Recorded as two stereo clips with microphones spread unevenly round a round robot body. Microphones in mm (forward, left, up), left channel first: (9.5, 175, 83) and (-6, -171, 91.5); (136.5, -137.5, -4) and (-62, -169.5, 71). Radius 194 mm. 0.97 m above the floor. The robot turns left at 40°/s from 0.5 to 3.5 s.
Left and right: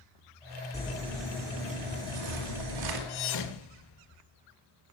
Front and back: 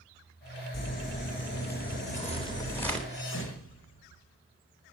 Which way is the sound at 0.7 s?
15° left.